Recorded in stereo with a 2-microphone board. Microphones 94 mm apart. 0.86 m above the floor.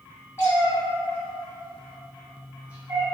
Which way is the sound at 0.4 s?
25° left (ahead or behind).